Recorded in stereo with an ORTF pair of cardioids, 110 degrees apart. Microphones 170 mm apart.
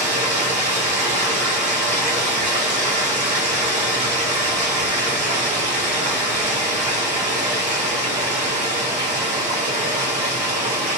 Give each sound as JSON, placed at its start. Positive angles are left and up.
{"t": 0.0, "sound": "running water", "azimuth_deg": -45, "distance_m": 1.7}